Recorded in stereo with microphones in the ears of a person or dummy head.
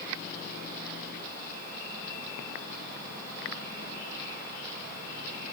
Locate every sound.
Only background noise.